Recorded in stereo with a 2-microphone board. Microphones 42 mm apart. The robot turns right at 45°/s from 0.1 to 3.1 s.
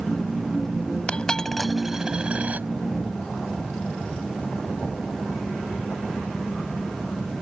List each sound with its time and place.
1.1 s a dropped coin: 25° left (ahead or behind); by 2.7 s 45° right (ahead or behind)